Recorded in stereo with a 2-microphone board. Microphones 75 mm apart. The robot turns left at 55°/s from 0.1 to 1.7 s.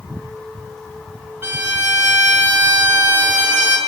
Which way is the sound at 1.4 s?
35° right (ahead or behind).